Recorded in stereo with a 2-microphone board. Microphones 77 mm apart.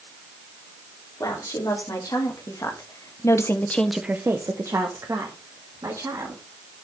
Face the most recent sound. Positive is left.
turn(degrees=-55)  # may be behind; listen again after turning